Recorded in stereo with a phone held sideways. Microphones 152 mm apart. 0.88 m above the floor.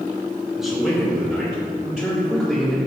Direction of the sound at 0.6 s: Centre (ahead or behind).